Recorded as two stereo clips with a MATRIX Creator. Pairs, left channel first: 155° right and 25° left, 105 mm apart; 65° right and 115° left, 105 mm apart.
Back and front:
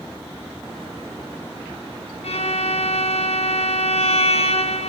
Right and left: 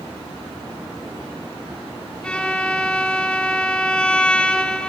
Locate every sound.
2.2 s a violin: 150° right, 1.7 m